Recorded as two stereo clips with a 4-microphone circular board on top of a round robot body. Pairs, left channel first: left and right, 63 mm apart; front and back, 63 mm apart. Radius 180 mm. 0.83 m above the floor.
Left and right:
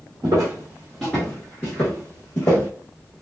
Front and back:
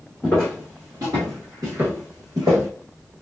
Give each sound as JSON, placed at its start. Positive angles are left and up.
{"t": 0.2, "sound": "footsteps", "azimuth_deg": -70, "distance_m": 0.8}